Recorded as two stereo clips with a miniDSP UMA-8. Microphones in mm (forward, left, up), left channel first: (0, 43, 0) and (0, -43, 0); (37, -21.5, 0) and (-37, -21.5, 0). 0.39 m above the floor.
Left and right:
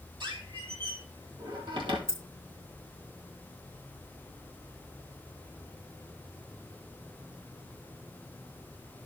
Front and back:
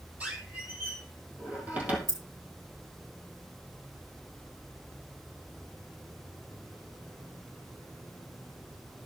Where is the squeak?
110° right, 2.5 m.